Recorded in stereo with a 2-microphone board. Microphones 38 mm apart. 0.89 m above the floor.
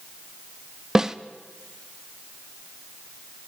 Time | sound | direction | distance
0.9 | a snare drum | 15° right (ahead or behind) | 0.8 m